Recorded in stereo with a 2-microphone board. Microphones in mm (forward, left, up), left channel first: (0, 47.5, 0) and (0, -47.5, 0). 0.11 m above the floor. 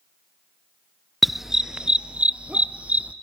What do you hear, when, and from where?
1.2 s a dog barking: centre (ahead or behind), 0.5 m; by 3.1 s 15° right (ahead or behind), 1.6 m